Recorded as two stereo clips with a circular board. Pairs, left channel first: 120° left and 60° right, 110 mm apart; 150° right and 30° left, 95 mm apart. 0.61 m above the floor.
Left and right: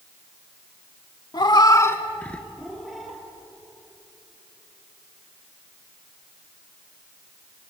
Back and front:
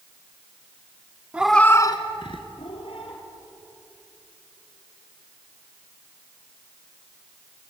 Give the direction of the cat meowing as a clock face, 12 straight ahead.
9 o'clock.